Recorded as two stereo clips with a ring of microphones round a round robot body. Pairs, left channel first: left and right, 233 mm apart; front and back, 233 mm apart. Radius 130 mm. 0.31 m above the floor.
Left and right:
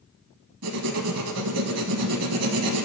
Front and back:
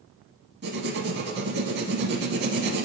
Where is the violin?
No violin in this recording.